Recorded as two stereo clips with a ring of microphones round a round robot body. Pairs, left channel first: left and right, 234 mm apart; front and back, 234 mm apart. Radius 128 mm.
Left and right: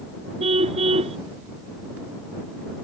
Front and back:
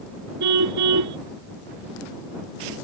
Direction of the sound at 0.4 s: 160° right.